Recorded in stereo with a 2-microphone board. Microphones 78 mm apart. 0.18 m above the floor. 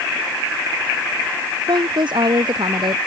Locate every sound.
1.7 s a woman speaking: 70° right (ahead or behind)